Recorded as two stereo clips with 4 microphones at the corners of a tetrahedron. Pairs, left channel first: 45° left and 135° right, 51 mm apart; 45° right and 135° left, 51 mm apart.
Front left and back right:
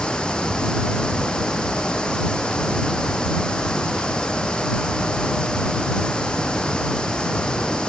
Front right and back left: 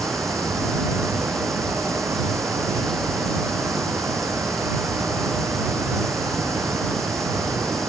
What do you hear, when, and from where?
0.0 s running water: 115° left